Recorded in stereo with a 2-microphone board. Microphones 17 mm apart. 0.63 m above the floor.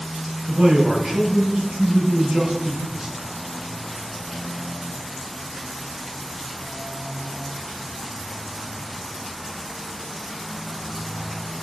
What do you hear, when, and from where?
0.5 s a man speaking: 45° right (ahead or behind), 0.8 m